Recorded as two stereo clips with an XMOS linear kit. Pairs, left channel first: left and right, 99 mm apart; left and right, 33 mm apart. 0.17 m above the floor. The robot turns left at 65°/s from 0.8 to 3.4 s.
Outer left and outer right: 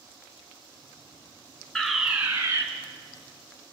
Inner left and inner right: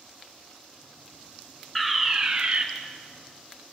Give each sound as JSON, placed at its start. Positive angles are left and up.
{"t": 1.8, "sound": "a fire alarm", "azimuth_deg": 10, "distance_m": 3.0}